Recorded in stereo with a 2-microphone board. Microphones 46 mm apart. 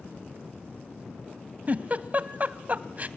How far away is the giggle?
About 0.8 m.